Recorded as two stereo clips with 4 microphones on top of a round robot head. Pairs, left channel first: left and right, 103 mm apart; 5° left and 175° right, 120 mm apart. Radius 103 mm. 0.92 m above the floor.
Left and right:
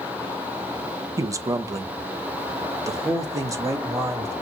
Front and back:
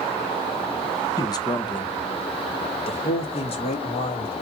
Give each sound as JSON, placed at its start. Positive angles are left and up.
{"t": 1.2, "sound": "a man speaking", "azimuth_deg": -40, "distance_m": 1.2}